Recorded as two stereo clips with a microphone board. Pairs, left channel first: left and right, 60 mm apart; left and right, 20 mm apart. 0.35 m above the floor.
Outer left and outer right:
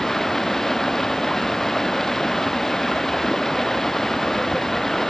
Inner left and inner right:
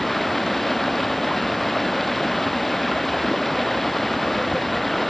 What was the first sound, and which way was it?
Running water, 5° left (ahead or behind).